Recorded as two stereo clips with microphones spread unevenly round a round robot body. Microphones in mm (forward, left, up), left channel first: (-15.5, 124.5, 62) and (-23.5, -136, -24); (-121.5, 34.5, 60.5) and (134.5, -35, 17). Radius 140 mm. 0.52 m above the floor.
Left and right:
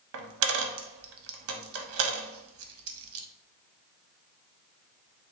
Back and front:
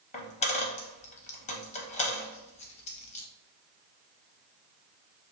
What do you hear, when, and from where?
0.1 s a dropped coin: 140° right, 0.5 m